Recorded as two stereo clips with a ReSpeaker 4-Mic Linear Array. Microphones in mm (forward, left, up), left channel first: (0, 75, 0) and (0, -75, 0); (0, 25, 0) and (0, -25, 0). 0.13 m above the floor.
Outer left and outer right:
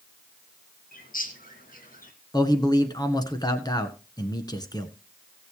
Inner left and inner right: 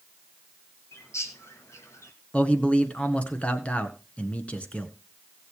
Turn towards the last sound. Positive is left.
turn(degrees=25)  # may be behind; listen again after turning